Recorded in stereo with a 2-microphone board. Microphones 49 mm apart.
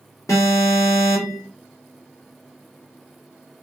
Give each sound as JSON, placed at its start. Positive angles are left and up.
{"t": 0.3, "sound": "an alarm", "side_deg": 85, "distance_m": 1.5}